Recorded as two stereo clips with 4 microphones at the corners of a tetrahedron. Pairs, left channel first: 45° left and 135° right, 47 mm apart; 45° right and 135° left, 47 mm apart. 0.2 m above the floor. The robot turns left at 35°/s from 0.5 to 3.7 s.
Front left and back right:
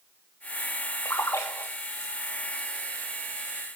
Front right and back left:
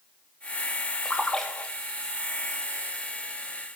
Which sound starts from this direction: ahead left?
A splash, at 1.1 s.